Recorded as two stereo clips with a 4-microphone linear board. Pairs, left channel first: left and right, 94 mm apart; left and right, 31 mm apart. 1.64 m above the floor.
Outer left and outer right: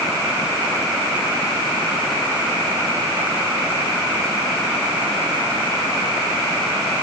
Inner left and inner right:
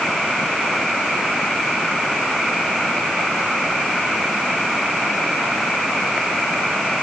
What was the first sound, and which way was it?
Only background noise.